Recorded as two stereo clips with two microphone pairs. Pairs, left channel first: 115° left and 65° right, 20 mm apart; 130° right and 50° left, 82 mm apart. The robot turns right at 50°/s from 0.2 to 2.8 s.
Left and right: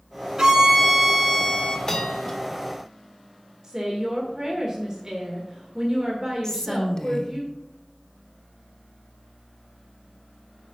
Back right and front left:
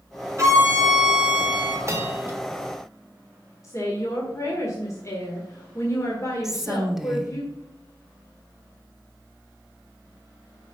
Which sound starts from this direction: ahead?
A violin, at 0.4 s.